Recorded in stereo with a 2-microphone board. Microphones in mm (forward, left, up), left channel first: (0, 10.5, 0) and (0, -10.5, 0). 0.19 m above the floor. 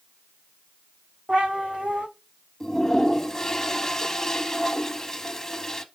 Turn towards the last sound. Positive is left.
turn(degrees=20)  # may be behind; listen again after turning